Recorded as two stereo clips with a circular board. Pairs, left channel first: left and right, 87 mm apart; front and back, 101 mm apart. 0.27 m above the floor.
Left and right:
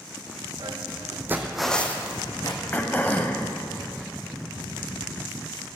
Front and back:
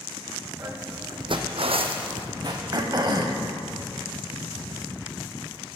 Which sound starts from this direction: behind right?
Footsteps, at 0.6 s.